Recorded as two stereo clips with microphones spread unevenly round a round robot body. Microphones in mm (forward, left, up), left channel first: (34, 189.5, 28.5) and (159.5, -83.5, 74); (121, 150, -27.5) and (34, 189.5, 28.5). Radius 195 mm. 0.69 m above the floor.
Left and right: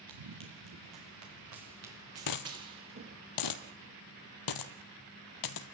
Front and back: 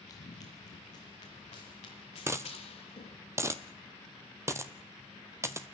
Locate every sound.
0.1 s running footsteps: 65° right, 3 m; by 3.2 s 20° right, 5 m
2.3 s a dropped coin: 135° left, 1.1 m